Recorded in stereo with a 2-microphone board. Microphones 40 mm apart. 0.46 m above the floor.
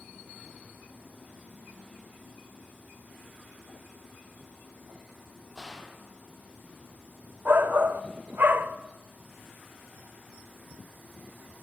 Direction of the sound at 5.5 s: 5° left (ahead or behind).